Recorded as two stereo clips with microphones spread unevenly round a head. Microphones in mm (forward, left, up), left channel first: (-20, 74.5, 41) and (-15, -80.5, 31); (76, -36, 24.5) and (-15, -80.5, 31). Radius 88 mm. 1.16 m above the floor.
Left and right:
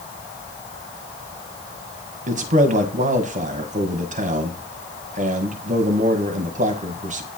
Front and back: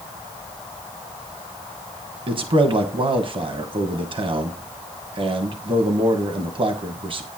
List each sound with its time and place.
2.3 s a man speaking: 120° right, 1.3 m